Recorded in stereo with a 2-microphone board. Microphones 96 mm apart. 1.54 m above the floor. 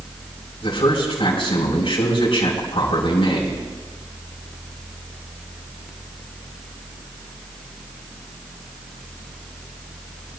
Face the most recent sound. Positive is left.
turn(degrees=70)  # may be behind; listen again after turning